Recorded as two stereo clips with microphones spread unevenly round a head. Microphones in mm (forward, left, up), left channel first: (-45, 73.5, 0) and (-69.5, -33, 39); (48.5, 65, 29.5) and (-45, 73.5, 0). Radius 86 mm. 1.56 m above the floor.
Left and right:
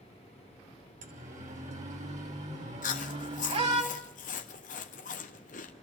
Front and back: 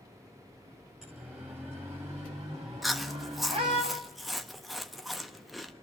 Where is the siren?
95° right, 3 m; by 3.8 s 125° right, 4 m.